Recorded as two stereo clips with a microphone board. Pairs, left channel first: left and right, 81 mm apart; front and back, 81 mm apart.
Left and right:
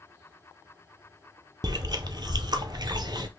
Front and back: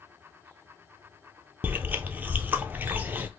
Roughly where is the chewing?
Behind right.